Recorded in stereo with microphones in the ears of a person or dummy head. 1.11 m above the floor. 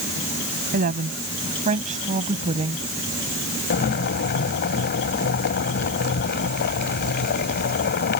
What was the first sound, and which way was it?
A woman speaking, 45° right (ahead or behind).